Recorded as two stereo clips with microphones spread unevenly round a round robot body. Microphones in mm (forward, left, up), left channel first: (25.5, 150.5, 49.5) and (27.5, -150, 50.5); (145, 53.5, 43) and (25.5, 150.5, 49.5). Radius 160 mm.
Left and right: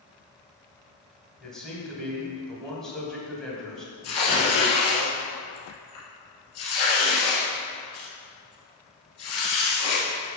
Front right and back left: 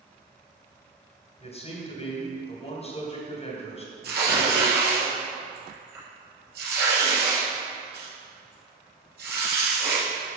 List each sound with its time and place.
1.4 s a man speaking: 5° left, 2.5 m
4.0 s tearing paper: 135° left, 2.5 m